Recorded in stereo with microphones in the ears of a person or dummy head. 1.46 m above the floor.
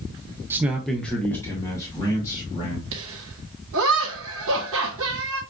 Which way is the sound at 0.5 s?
15° right (ahead or behind).